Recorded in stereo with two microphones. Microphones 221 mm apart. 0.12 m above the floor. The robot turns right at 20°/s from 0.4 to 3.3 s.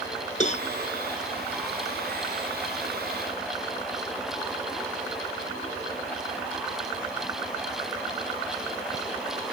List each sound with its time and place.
0.4 s a cowbell: 30° left (ahead or behind)